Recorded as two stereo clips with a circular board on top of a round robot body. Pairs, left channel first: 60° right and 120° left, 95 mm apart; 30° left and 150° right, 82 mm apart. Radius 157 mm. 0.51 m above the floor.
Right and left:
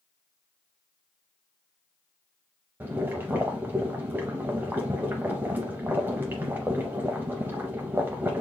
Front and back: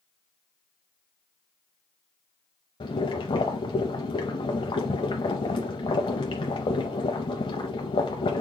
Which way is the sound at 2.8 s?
50° left.